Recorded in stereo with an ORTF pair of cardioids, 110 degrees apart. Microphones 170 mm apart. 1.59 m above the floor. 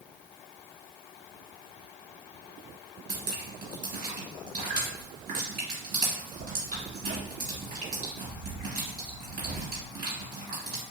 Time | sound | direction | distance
3.1 | dripping | 60° right | 1.7 m